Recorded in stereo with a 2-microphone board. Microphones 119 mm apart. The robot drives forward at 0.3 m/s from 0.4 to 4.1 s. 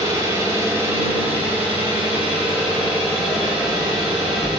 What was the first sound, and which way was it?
An engine running, 25° right (ahead or behind).